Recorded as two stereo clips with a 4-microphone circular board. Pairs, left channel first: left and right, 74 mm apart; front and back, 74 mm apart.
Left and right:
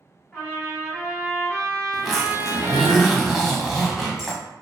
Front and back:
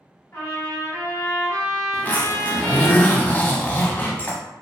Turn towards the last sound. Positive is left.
turn(degrees=-10)